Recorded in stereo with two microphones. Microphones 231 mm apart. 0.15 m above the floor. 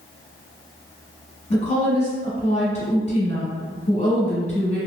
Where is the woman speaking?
30° left (ahead or behind), 1.1 m.